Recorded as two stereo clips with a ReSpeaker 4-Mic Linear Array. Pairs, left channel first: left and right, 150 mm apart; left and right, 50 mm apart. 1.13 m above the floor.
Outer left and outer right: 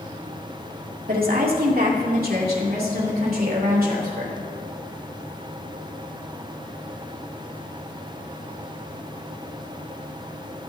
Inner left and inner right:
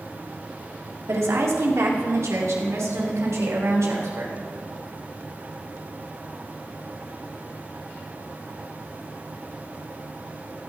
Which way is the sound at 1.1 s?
80° right.